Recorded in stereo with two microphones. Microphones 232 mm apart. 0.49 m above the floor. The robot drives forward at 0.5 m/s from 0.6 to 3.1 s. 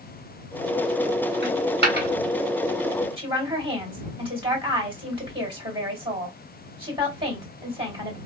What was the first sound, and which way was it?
A dropped coin, 55° right (ahead or behind).